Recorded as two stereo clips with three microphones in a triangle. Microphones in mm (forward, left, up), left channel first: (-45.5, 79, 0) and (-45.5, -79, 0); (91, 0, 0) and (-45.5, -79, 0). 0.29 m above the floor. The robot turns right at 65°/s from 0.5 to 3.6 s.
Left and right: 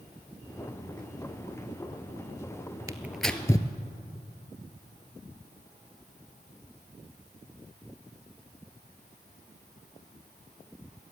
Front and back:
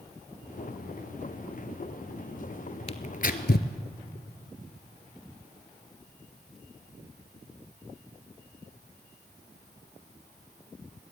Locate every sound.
2.9 s tearing paper: 20° right, 1.1 m; by 3.7 s 25° left, 1.1 m